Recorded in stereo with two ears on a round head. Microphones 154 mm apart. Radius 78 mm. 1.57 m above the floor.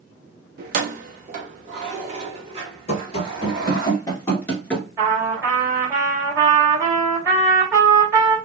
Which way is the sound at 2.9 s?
40° left (ahead or behind).